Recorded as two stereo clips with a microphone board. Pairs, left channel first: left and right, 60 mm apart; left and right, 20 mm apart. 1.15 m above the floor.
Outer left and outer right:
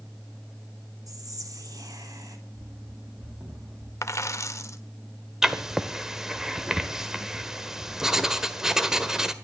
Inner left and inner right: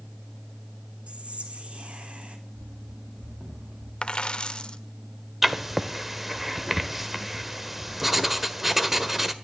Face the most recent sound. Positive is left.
turn(degrees=-10)  # may be behind; listen again after turning